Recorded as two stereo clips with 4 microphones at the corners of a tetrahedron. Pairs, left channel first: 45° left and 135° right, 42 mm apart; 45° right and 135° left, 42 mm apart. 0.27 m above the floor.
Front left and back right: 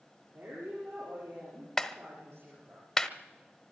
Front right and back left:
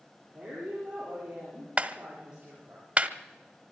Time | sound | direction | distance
0.3 | a woman speaking | 155° right | 7.5 m
1.8 | a clap | 120° left | 0.9 m